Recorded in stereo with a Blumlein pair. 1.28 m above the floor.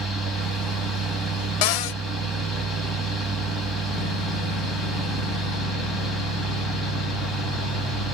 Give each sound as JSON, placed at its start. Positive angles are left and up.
{"t": 0.0, "sound": "a fan", "azimuth_deg": 0, "distance_m": 1.9}
{"t": 1.6, "sound": "a cupboard door", "azimuth_deg": 45, "distance_m": 0.6}